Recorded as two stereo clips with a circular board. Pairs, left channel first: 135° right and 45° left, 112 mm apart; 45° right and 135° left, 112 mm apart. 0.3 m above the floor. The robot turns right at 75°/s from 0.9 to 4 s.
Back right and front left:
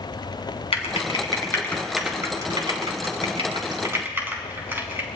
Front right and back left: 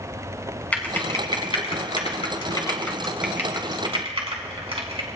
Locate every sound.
0.7 s typing on a keyboard: 120° right, 2.5 m; by 5.1 s 110° left, 2.5 m